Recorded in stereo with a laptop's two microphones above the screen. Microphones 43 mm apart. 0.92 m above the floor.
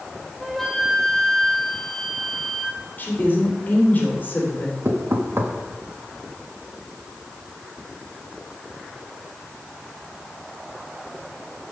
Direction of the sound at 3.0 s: 40° left (ahead or behind).